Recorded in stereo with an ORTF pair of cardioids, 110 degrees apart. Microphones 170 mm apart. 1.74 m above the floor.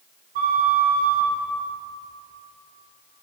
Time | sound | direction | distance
0.3 | a flute | 55° right | 1.1 m